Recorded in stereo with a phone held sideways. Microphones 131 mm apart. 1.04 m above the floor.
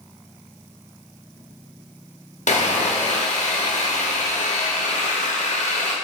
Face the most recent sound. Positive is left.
turn(degrees=65)  # may be behind; listen again after turning